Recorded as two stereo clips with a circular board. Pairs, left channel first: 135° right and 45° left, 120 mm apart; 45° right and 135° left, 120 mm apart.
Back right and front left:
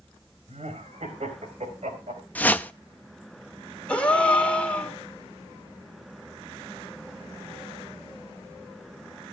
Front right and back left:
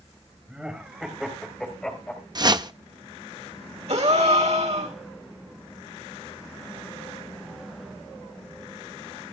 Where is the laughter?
55° left, 4 m; by 2.2 s 30° left, 4 m.